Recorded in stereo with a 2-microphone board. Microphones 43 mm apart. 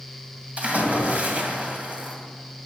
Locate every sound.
0.6 s a splash: 35° right (ahead or behind), 2 m